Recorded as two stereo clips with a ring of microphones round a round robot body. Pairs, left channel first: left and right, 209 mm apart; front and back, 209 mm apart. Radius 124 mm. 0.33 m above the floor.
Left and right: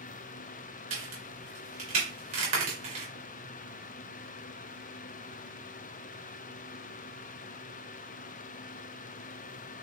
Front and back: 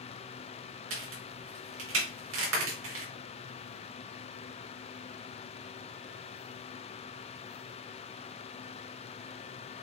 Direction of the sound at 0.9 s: 155° right.